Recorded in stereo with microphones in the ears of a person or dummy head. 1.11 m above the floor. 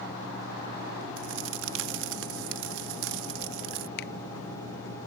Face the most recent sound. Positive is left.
turn(degrees=60)  # may be behind; listen again after turning